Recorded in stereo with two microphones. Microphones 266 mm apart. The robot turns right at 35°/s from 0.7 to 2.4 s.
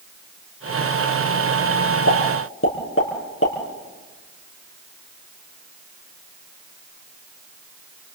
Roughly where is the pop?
Left.